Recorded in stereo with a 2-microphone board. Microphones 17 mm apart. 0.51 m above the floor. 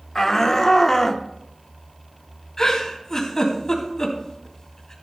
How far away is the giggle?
About 3 m.